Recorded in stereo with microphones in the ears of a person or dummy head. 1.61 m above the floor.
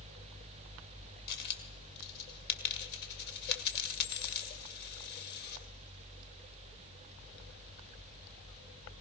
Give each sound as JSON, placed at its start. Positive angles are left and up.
{"t": 1.3, "sound": "a dropped coin", "side_deg": 50, "distance_m": 2.5}